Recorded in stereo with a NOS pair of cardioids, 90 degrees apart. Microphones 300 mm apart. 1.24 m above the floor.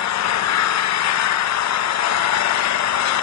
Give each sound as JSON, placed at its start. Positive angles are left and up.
{"t": 0.0, "sound": "an engine running", "azimuth_deg": 65, "distance_m": 1.0}